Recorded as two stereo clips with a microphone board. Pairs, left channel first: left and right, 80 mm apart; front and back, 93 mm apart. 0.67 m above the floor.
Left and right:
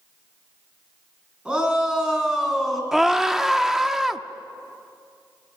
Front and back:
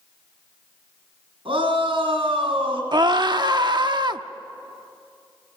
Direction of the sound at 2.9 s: 175° right.